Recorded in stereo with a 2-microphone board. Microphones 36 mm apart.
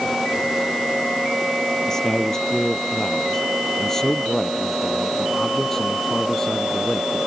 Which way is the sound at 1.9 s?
15° left (ahead or behind).